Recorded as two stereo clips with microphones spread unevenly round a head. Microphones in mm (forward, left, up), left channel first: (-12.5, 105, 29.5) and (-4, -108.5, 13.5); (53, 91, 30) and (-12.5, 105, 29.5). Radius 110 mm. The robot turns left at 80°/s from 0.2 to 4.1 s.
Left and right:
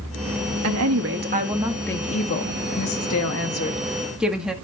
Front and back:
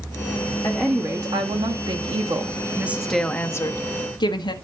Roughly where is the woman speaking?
Right.